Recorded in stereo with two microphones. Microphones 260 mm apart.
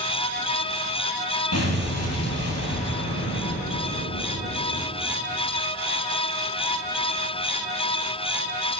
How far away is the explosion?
About 2 m.